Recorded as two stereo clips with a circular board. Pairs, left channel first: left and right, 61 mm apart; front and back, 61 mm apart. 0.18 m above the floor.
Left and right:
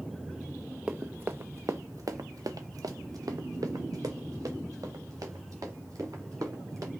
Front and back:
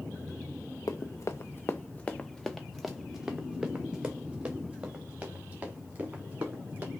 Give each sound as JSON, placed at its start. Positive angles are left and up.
{"t": 0.9, "sound": "running footsteps", "azimuth_deg": -20, "distance_m": 0.7}